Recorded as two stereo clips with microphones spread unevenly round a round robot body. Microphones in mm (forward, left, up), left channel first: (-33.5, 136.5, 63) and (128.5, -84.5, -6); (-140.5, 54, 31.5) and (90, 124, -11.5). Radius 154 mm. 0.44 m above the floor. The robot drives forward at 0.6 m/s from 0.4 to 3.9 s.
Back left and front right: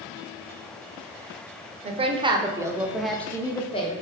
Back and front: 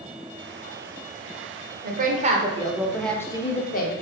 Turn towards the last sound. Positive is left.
turn(degrees=-160)